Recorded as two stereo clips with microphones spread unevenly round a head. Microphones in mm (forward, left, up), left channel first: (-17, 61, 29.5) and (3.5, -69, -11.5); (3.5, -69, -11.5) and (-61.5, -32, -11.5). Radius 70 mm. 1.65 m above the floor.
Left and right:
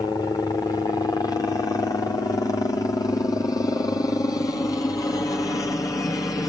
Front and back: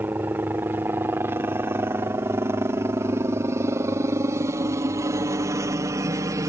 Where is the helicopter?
170° left; by 6.5 s 175° left.